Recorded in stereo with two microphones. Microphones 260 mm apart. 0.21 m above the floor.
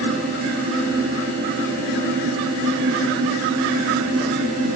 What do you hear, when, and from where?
Only background noise.